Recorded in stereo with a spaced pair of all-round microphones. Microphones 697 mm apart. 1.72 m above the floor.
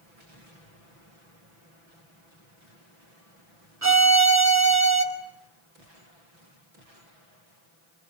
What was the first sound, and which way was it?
A violin, 25° right (ahead or behind).